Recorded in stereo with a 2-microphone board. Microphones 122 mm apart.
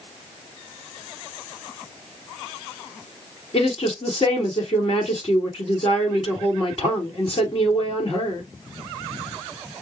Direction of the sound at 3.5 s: 50° left (ahead or behind).